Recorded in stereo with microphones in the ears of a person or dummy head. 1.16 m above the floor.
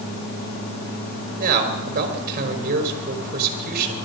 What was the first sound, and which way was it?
A man speaking, 40° right (ahead or behind).